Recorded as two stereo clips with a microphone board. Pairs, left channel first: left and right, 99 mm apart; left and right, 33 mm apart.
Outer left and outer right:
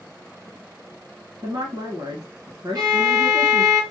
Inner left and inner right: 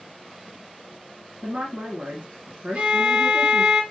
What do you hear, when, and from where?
1.4 s a woman speaking: 45° right (ahead or behind), 1.5 m
2.8 s a violin: 45° right (ahead or behind), 1.9 m